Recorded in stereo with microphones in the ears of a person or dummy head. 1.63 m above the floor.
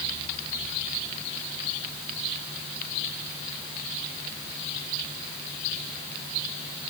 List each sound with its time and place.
Only background noise.